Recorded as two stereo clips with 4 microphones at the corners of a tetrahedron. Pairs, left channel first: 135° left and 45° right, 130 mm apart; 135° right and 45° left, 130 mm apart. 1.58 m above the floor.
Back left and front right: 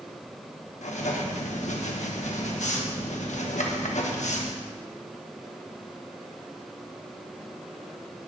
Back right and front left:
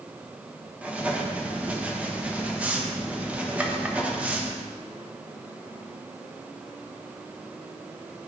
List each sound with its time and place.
0.8 s writing: 125° left, 1.2 m